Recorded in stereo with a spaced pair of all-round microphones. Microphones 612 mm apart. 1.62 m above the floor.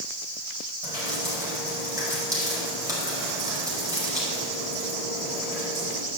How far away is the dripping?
About 4.5 m.